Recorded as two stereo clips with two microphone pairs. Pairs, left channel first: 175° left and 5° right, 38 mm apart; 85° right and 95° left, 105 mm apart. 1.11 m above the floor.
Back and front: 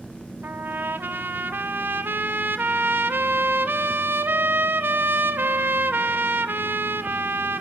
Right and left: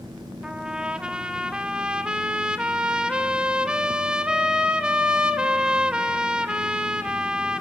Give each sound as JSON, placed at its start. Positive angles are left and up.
{"t": 0.4, "sound": "a trumpet", "azimuth_deg": 10, "distance_m": 0.7}